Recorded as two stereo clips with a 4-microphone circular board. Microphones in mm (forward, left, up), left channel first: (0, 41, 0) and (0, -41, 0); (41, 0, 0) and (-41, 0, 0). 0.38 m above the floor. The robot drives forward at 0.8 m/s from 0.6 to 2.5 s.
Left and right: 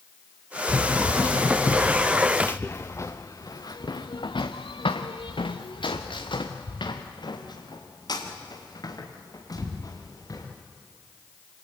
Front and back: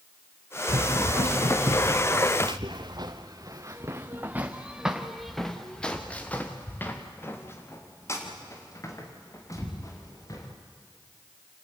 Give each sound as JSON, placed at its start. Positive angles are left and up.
{"t": 0.7, "sound": "running footsteps", "azimuth_deg": 170, "distance_m": 2.5}